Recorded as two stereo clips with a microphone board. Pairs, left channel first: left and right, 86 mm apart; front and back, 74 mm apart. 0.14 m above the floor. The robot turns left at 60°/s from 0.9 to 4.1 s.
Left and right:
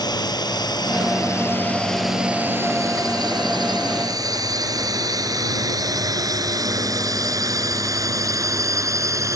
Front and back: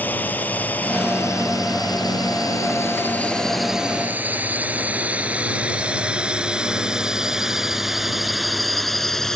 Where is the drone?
65° left; by 9.4 s 80° right.